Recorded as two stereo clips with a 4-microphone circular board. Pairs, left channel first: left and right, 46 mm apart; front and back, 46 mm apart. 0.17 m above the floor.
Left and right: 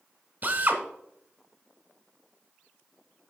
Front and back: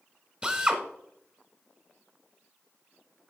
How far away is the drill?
About 0.9 m.